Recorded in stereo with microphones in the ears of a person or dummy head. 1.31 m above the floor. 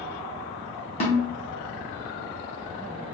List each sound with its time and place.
1.0 s a snare drum: 35° left (ahead or behind), 0.7 m